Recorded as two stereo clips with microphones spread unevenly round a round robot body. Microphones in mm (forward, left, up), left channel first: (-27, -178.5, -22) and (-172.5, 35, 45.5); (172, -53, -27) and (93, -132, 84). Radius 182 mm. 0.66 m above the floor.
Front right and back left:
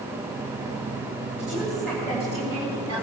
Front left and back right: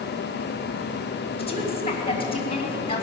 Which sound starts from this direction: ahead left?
A woman speaking, at 1.4 s.